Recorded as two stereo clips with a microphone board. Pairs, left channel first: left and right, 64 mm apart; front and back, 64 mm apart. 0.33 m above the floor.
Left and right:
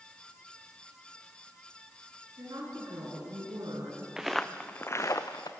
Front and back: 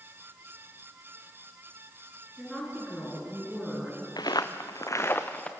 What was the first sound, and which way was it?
A woman speaking, 85° right.